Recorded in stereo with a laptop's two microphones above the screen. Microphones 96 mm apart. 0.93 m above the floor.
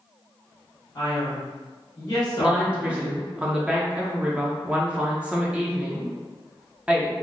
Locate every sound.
0.9 s a man speaking: 45° left (ahead or behind), 1.2 m
2.4 s a woman speaking: 10° right (ahead or behind), 0.7 m